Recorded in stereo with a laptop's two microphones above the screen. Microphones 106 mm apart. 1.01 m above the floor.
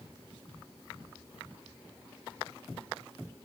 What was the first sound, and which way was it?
Only background noise.